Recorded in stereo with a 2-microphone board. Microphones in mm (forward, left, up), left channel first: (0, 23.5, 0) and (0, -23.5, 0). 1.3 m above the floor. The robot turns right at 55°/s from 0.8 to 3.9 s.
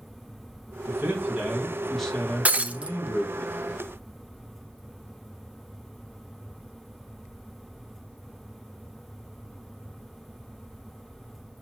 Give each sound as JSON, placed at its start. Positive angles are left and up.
{"t": 0.9, "sound": "a man speaking", "azimuth_deg": -60, "distance_m": 1.5}
{"t": 2.5, "sound": "breaking glass", "side_deg": -30, "distance_m": 0.5}